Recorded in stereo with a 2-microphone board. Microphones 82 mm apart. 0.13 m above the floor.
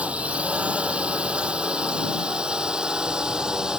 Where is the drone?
15° right (ahead or behind); by 3.8 s 10° right (ahead or behind).